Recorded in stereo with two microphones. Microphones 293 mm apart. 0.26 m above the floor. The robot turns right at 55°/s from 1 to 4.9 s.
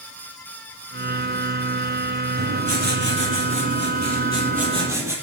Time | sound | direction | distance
2.4 | writing | 150° right | 7 m